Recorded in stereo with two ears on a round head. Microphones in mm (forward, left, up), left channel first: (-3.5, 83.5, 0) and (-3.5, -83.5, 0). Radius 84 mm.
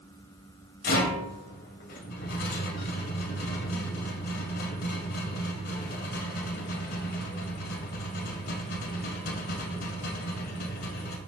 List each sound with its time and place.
0.8 s a rattle: 55° left (ahead or behind), 1.5 m